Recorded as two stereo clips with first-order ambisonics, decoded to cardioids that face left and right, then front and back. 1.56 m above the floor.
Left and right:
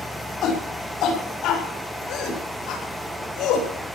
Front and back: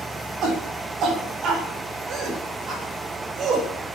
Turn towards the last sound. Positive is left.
turn(degrees=120)